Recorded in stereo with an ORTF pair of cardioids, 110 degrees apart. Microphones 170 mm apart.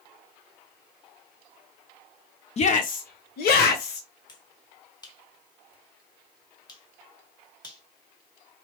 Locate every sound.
2.6 s a shout: 40° left, 0.6 m; by 4.1 s 75° left, 1.2 m
4.3 s a finger snap: 25° left, 1.4 m